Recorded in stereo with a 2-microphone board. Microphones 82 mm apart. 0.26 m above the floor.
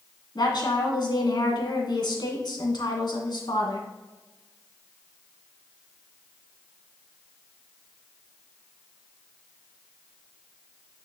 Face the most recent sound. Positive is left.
turn(degrees=65)  # may be behind; listen again after turning